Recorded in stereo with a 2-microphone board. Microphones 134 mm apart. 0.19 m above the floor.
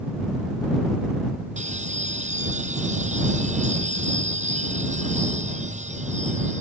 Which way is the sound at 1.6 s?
65° right (ahead or behind).